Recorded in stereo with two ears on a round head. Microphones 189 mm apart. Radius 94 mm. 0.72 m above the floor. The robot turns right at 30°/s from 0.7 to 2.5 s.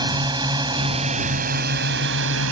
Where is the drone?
160° right; by 2.5 s 105° right.